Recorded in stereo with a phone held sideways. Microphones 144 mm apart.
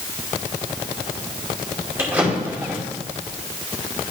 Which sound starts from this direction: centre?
A drawer, at 2.0 s.